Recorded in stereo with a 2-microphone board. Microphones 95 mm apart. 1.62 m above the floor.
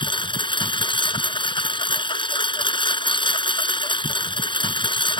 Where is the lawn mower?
60° left (ahead or behind).